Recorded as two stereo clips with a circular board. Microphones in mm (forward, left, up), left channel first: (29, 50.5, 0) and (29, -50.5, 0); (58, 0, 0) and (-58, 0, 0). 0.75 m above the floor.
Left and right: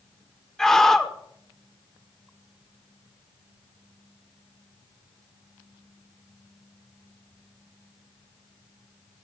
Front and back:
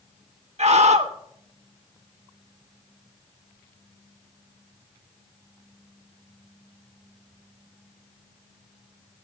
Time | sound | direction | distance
0.6 | a scream | 175° left | 1.6 m